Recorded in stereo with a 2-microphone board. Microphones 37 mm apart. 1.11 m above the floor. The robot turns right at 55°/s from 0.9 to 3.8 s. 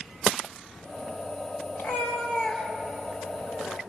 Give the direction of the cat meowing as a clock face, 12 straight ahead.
8 o'clock.